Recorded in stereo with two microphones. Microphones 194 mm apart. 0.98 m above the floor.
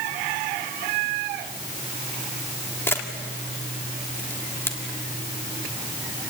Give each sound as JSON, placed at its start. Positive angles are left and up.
{"t": 2.9, "sound": "a camera shutter", "side_deg": 10, "distance_m": 1.8}